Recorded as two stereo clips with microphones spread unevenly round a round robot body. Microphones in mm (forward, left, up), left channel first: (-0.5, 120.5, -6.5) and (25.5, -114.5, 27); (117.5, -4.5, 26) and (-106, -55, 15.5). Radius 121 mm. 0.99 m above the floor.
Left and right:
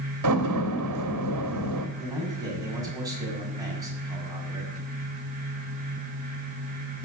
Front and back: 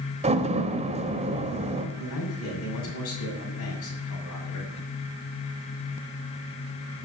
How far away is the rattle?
I don't hear a rattle.